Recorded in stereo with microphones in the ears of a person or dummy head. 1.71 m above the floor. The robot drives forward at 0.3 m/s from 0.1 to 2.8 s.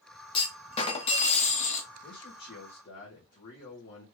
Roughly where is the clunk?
Left.